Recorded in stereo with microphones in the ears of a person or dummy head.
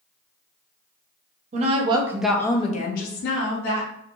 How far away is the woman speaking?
About 0.8 m.